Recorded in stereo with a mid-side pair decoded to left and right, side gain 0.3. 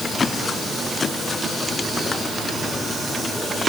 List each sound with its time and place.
Only background noise.